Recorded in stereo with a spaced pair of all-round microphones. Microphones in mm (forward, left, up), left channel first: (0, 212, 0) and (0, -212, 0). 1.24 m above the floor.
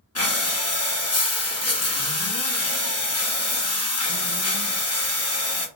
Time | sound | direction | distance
0.1 | breathing | 35° left (ahead or behind) | 0.8 m